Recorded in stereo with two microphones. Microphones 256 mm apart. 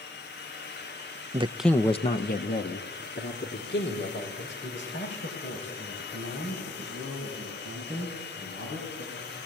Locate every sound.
1.3 s a man speaking: 25° right (ahead or behind), 0.7 m; by 9.4 s 50° left (ahead or behind), 11 m